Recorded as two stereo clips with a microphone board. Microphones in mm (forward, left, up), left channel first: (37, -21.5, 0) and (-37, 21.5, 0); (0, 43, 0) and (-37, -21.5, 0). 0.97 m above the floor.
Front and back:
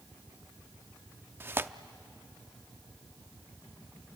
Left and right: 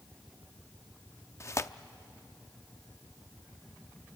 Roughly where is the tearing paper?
Left.